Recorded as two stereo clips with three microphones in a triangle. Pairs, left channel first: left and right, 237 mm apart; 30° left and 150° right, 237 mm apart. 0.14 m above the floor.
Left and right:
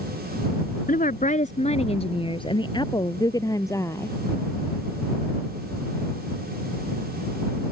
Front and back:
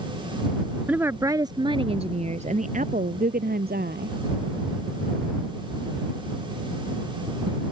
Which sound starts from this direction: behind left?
A woman speaking, at 0.9 s.